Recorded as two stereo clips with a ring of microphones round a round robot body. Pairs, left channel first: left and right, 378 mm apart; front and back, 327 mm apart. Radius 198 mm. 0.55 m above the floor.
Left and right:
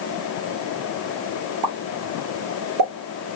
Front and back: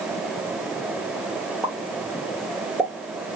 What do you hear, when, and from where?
1.6 s a pop: 95° right, 1.1 m